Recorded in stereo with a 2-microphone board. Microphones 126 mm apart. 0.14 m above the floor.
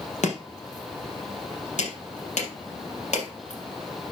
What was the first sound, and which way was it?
Chopping, 70° left (ahead or behind).